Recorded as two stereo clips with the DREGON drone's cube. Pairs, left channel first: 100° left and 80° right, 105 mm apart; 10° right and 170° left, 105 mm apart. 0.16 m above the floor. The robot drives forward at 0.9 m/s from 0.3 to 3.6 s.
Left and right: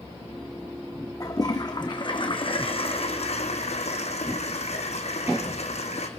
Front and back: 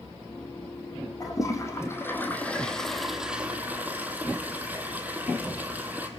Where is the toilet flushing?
45° left, 3 m; by 6.1 s 95° left, 2.0 m.